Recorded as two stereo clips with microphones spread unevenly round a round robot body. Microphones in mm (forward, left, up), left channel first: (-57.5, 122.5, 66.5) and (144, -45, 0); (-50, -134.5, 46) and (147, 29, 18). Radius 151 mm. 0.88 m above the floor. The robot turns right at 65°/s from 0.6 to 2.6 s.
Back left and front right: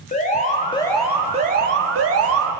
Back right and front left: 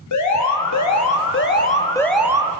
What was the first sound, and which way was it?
An alarm, 150° right.